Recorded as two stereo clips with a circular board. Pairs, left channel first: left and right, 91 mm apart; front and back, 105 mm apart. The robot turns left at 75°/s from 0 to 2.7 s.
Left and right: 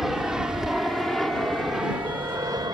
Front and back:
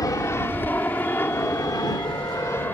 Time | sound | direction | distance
0.0 | an aircraft | 5° right | ?